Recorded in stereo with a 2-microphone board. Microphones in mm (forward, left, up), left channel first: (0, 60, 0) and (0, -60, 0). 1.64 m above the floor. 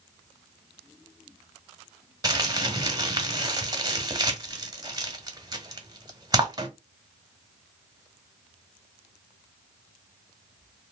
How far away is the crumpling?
About 1.1 m.